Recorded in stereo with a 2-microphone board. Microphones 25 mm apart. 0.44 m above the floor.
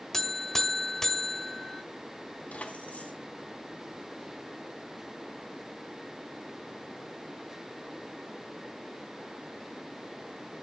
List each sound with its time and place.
0.1 s a buzzer: 20° left (ahead or behind), 1.5 m
2.5 s keys jangling: 75° left (ahead or behind), 2.5 m